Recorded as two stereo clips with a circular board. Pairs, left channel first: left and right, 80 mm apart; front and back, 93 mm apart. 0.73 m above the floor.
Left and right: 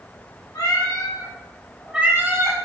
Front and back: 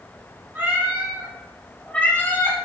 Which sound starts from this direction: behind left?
A cat meowing, at 0.6 s.